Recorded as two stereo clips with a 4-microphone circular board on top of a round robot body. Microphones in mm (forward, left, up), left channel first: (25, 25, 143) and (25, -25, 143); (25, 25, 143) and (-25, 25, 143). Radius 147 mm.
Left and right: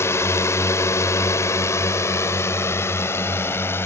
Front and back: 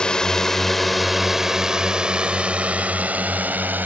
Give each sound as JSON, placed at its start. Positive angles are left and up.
{"t": 0.0, "sound": "a drone", "azimuth_deg": 70}